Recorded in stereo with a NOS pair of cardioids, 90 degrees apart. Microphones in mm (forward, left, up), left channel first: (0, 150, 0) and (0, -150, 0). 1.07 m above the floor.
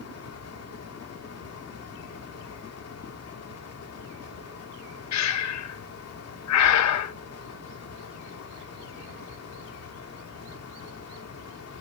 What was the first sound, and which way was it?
A fan, 50° left.